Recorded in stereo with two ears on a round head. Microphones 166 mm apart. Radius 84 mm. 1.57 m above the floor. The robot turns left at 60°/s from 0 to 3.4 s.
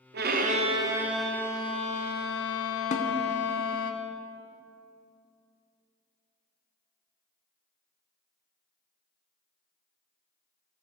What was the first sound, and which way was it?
A violin, 115° right.